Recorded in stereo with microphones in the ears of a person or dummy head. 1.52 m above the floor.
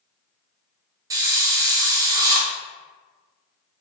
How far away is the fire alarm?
I don't hear a fire alarm.